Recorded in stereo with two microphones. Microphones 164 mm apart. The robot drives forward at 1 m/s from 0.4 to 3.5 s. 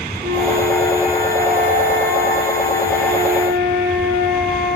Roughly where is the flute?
Right.